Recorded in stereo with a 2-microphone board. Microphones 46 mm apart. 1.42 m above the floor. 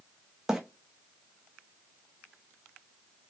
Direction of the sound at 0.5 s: 10° right (ahead or behind).